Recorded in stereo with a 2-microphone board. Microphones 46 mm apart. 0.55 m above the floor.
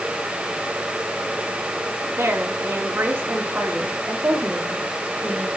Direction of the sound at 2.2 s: 75° right (ahead or behind).